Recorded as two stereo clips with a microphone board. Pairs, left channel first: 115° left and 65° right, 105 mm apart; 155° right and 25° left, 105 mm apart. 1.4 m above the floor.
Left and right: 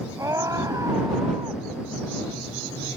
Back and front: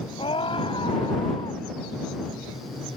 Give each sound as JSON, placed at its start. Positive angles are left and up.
{"t": 0.2, "sound": "a scream", "azimuth_deg": -125}